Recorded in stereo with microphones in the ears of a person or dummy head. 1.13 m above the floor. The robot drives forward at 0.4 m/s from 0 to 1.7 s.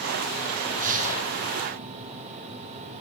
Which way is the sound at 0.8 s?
45° right (ahead or behind).